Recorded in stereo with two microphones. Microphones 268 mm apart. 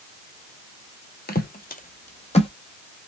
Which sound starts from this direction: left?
Footsteps, at 1.3 s.